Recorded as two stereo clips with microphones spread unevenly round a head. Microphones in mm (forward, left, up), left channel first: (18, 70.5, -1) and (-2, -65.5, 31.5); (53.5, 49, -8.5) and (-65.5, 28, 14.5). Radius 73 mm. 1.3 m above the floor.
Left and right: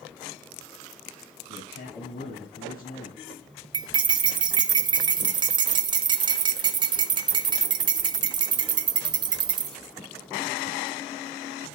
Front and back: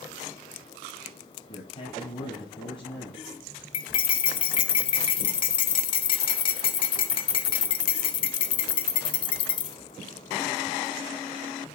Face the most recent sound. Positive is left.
turn(degrees=-50)